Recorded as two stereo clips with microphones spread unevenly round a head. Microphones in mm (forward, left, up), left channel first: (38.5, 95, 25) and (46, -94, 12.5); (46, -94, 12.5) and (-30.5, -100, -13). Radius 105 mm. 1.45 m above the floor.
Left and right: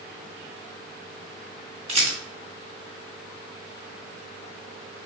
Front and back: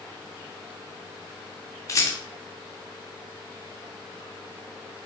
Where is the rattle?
30° right, 3 m.